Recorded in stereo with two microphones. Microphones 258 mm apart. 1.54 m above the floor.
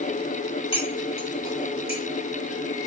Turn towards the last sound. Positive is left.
turn(degrees=20)  # may be behind; listen again after turning